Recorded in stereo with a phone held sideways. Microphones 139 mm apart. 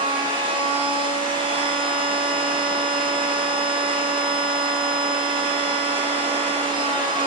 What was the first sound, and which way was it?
A machine running, 35° right (ahead or behind).